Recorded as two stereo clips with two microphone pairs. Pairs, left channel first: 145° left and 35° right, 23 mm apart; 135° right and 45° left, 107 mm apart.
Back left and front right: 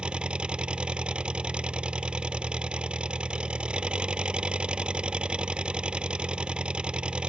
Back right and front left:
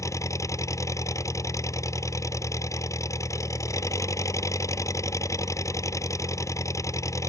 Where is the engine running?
75° right.